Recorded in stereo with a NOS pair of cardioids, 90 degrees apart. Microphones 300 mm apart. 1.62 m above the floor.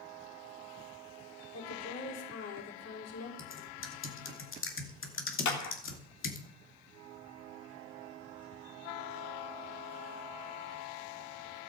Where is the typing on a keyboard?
45° left, 2.5 m.